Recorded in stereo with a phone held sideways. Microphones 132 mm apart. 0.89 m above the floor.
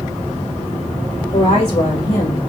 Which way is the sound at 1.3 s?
65° left (ahead or behind).